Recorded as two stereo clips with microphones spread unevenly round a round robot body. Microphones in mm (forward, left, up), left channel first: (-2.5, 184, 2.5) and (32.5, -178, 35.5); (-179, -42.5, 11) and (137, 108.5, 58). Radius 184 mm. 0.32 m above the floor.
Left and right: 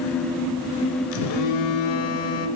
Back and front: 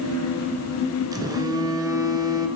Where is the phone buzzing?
105° left, 1.5 m.